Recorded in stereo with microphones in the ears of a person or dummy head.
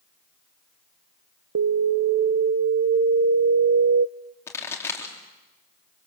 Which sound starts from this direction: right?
An alarm, at 1.6 s.